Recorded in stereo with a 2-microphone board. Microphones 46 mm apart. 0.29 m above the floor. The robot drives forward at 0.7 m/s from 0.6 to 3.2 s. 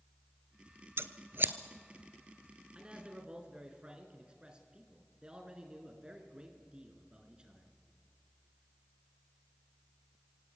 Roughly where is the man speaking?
Right.